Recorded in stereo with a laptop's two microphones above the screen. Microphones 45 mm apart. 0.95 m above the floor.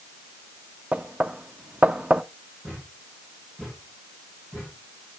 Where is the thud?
30° right (ahead or behind), 7 m.